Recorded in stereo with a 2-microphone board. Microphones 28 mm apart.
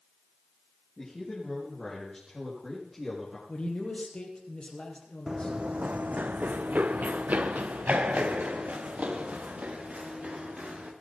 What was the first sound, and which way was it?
A man speaking, 20° left (ahead or behind).